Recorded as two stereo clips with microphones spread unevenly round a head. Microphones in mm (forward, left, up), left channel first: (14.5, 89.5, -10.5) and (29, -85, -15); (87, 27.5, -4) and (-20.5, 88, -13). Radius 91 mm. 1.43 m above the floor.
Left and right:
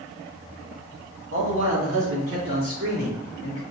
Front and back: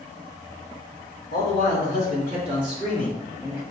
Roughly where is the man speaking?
Right.